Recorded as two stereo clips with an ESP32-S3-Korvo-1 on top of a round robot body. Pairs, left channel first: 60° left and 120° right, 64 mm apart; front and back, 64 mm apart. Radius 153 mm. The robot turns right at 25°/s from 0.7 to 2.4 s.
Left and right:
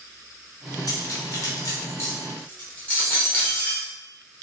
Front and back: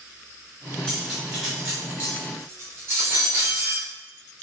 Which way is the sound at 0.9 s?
85° left.